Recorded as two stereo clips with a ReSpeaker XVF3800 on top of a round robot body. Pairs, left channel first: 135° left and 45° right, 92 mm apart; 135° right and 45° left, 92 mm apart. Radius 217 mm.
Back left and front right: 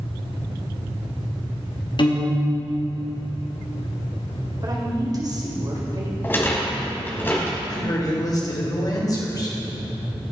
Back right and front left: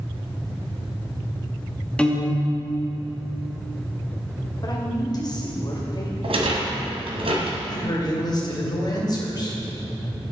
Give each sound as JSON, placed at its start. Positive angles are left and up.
{"t": 2.0, "sound": "a piano", "azimuth_deg": 150, "distance_m": 2.0}
{"t": 4.6, "sound": "a woman speaking", "azimuth_deg": -90, "distance_m": 2.5}
{"t": 6.2, "sound": "a rattle", "azimuth_deg": 65, "distance_m": 1.8}
{"t": 7.7, "sound": "a man speaking", "azimuth_deg": 180, "distance_m": 2.5}